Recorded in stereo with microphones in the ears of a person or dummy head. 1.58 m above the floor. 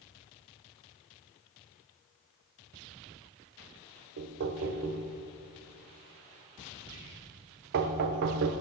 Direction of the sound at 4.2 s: 55° right (ahead or behind).